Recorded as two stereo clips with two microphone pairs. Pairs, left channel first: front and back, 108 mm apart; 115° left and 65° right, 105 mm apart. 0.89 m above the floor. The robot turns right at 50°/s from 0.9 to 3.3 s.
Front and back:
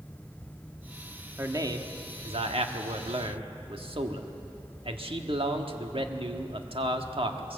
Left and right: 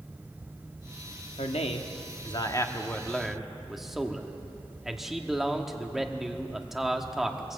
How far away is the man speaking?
About 1.4 m.